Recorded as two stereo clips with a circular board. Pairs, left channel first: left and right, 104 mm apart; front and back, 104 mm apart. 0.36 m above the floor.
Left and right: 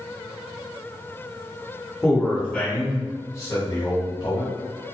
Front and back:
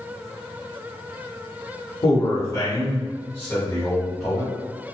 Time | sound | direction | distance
2.0 | a man speaking | straight ahead | 1.3 m